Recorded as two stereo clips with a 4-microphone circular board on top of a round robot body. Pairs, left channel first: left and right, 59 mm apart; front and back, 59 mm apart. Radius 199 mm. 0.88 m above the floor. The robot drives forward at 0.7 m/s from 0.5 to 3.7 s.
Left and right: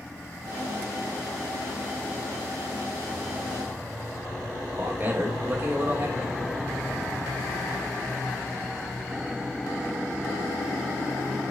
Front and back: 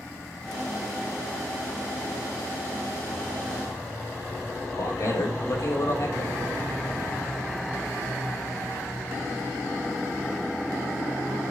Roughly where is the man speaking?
Ahead right.